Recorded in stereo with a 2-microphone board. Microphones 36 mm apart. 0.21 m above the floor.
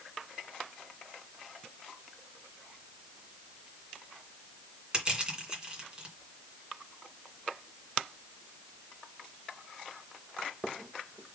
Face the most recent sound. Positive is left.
turn(degrees=-25)  # may be behind; listen again after turning